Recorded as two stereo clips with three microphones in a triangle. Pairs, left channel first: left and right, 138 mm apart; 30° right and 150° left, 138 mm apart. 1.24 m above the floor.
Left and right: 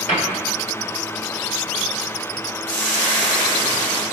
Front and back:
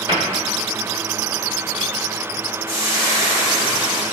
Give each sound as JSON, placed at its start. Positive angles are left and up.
{"t": 0.1, "sound": "a cupboard door", "azimuth_deg": 100, "distance_m": 1.6}
{"t": 2.7, "sound": "frying", "azimuth_deg": 10, "distance_m": 1.4}